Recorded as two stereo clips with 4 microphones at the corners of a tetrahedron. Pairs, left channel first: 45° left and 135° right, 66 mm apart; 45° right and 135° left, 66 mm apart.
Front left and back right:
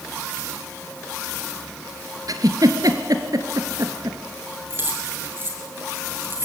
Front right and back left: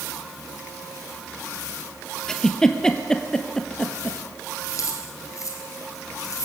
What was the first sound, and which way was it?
A giggle, 125° right.